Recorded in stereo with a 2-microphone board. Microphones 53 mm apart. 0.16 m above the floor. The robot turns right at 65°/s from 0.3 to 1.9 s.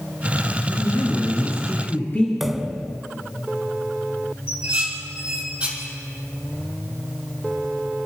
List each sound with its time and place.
0.6 s a woman speaking: 60° left, 3.5 m; by 2.3 s 145° left, 3.5 m
2.4 s a pop: 5° right (ahead or behind), 0.7 m
4.5 s dishes clattering: 20° right (ahead or behind), 4.5 m